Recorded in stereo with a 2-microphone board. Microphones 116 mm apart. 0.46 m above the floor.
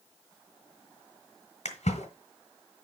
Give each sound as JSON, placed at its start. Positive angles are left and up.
{"t": 1.6, "sound": "a splash", "side_deg": 80, "distance_m": 2.0}